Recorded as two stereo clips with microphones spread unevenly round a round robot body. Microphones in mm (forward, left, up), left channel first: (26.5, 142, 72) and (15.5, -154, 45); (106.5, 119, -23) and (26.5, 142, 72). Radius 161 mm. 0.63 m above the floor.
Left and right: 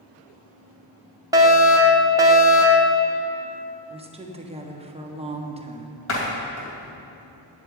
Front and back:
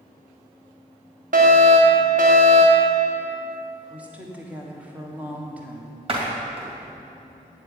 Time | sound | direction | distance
1.3 | a fire alarm | 150° right | 1.7 m
3.9 | a woman speaking | 40° right | 1.4 m
6.1 | a door slam | 140° left | 3 m